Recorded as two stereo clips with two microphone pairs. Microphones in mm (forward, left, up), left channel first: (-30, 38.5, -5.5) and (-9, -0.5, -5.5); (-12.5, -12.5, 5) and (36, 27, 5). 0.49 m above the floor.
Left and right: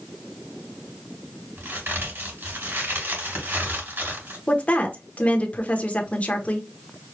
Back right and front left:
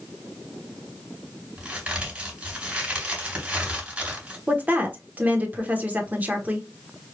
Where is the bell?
I don't hear a bell.